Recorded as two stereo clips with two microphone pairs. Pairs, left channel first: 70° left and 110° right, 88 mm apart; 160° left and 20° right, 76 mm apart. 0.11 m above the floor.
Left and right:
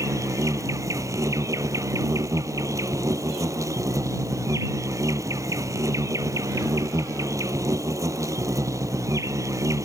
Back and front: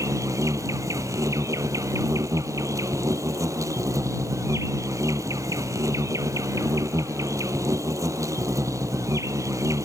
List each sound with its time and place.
0.0 s an insect: 60° right